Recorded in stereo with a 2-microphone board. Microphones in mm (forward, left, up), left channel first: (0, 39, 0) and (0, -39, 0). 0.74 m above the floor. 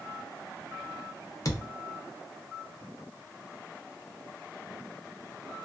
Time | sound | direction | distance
1.4 | a thud | 45° left (ahead or behind) | 0.7 m